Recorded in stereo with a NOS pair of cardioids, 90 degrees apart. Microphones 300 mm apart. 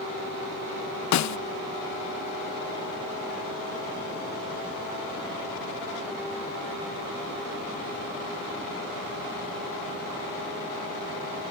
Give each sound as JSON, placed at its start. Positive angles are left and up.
{"t": 1.1, "sound": "a snare drum", "azimuth_deg": 65}